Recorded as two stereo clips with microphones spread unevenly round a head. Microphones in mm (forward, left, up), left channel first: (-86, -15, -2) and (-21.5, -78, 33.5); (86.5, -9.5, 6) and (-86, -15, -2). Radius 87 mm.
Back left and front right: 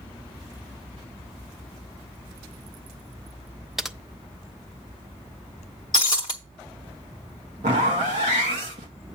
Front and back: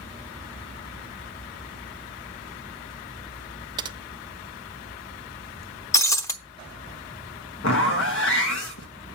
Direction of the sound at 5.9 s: 65° left.